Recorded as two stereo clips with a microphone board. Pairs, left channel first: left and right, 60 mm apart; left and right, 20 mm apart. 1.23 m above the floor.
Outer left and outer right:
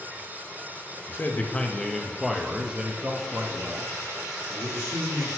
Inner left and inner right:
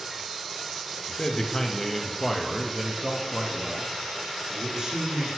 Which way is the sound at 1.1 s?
40° left (ahead or behind).